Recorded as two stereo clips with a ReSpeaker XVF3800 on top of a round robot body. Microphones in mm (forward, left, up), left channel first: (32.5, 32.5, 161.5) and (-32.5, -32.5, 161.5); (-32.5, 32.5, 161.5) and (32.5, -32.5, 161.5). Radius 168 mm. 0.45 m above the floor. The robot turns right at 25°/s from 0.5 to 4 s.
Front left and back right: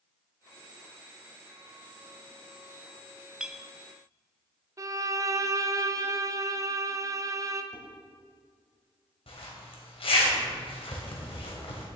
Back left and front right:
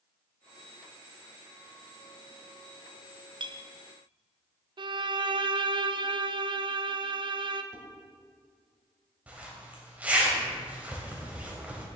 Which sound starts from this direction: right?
A violin, at 4.8 s.